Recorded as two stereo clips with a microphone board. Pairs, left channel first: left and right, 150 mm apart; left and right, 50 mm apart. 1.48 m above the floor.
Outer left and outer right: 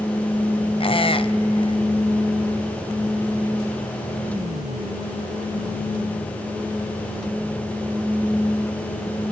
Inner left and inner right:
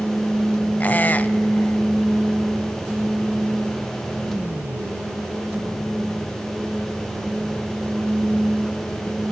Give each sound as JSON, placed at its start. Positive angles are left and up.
{"t": 0.8, "sound": "a squeak", "side_deg": 35, "distance_m": 0.6}